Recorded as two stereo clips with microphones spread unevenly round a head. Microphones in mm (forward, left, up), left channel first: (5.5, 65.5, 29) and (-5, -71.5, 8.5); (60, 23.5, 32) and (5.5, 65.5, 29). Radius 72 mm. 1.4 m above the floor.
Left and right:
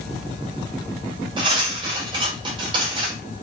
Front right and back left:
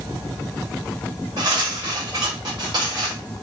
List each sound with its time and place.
1.4 s cutlery clinking: 155° right, 1.3 m